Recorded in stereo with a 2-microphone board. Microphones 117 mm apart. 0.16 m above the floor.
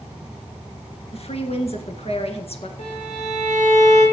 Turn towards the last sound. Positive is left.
turn(degrees=70)  # may be behind; listen again after turning